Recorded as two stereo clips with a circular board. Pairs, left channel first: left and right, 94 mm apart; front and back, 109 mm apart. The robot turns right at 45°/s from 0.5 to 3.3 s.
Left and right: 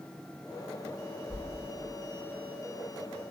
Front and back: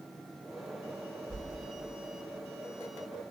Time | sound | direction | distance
1.3 | a whoosh | 50° left | 0.9 m